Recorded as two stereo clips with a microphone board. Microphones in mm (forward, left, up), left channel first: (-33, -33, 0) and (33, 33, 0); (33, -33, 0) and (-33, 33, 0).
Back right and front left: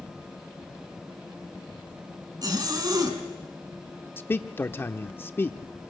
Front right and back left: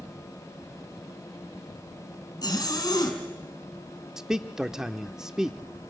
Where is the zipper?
Straight ahead, 3.5 m.